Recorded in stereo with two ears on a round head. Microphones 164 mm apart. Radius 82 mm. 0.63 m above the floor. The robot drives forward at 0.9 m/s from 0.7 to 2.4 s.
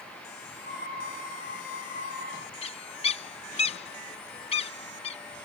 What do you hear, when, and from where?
2.6 s a bird: 35° left (ahead or behind)